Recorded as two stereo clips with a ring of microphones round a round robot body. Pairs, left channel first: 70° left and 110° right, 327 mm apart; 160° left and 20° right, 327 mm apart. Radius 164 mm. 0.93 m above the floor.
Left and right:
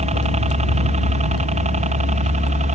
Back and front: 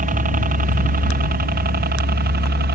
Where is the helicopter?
60° right.